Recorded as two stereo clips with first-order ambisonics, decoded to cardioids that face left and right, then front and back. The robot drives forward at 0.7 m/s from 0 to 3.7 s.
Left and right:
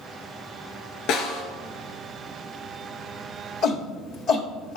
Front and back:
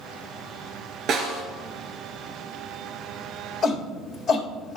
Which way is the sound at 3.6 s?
75° left.